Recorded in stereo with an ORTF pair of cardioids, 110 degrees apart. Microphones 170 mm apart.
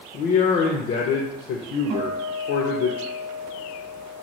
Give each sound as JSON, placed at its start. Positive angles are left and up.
{"t": 0.1, "sound": "a man speaking", "azimuth_deg": 65, "distance_m": 0.5}
{"t": 1.9, "sound": "a guitar", "azimuth_deg": -50, "distance_m": 0.9}